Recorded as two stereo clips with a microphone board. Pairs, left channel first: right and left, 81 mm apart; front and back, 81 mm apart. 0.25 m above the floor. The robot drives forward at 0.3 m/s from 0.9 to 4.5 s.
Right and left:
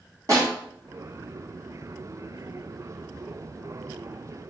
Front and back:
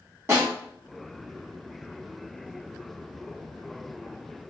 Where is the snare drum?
125° left, 1.8 m.